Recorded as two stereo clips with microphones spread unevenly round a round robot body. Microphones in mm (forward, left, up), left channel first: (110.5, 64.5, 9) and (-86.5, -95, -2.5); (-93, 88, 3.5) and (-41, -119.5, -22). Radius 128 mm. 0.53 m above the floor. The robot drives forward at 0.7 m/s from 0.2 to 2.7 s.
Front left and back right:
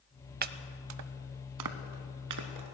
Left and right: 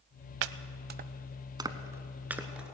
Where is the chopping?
85° right, 0.5 m; by 2.7 s 165° right, 1.7 m.